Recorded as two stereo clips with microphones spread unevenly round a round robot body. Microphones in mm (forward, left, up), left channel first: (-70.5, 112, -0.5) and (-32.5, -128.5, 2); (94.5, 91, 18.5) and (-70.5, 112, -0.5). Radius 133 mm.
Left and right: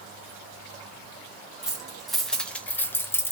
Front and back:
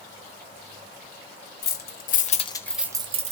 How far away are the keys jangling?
About 1.1 m.